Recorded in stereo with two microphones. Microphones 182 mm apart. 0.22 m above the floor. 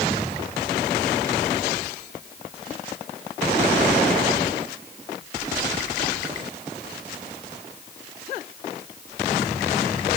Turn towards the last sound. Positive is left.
No sound to turn to.